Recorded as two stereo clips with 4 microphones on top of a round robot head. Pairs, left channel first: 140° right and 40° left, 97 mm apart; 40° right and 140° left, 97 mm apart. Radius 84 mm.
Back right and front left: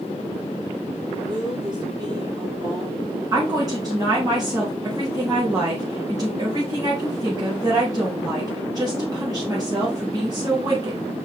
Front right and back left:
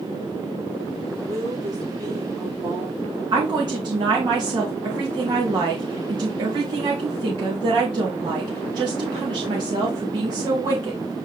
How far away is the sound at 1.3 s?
About 4 m.